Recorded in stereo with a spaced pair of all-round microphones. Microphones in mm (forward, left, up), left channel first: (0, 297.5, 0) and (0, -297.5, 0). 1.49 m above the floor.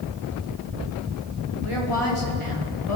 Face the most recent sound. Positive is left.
turn(degrees=55)  # may be behind; listen again after turning